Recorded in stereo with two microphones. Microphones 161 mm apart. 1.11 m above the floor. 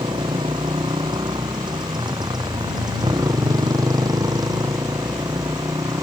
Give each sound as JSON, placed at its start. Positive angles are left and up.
{"t": 0.0, "sound": "a motorcycle", "side_deg": -30}